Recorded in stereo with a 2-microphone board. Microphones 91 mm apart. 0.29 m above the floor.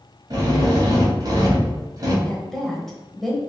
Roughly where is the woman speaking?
Centre.